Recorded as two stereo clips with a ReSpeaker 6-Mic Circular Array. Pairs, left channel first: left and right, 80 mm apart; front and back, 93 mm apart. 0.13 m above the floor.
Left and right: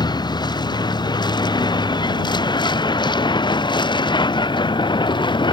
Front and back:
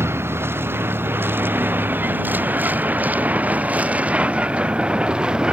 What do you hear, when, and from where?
0.0 s a vehicle: 115° left; by 5.5 s 100° left